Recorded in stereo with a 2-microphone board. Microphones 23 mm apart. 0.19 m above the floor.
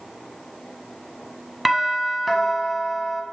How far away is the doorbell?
About 1.5 m.